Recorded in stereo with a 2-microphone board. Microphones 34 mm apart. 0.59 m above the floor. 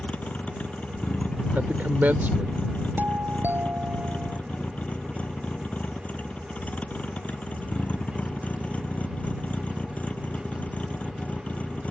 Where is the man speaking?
65° right (ahead or behind).